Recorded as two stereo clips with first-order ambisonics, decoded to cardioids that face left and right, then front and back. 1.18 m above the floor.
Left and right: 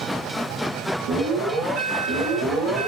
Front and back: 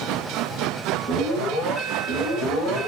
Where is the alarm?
85° right, 2.5 m.